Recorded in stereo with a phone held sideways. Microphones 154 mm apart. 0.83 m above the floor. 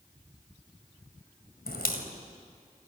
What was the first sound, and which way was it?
A crack, 80° left.